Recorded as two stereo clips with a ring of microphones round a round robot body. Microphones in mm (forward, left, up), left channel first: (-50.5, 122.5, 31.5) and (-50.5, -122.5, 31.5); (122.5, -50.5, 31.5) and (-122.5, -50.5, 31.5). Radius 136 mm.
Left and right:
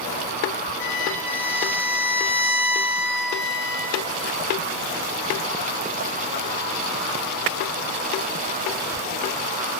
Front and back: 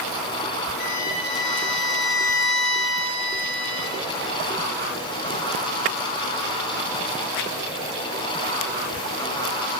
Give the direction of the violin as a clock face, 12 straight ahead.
12 o'clock.